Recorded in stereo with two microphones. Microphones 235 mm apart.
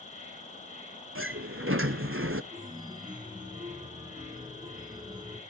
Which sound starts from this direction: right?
A sliding door, at 1.1 s.